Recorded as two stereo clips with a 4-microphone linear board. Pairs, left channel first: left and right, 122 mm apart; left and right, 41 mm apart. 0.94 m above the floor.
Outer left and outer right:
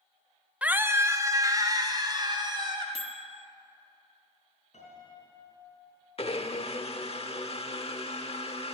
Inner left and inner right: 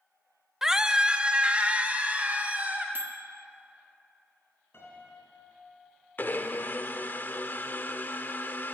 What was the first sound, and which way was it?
A scream, 10° right (ahead or behind).